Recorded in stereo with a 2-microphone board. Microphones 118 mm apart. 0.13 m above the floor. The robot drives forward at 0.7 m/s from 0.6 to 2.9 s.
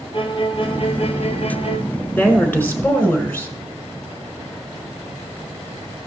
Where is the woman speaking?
15° left (ahead or behind), 1.8 m.